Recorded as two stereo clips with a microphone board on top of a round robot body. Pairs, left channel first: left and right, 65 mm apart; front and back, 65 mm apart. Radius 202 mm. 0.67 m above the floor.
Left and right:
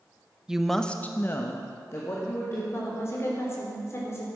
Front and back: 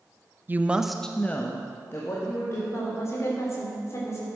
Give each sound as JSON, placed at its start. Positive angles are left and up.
{"t": 0.5, "sound": "a woman speaking", "azimuth_deg": -160, "distance_m": 1.1}
{"t": 2.7, "sound": "a woman speaking", "azimuth_deg": 45, "distance_m": 3.5}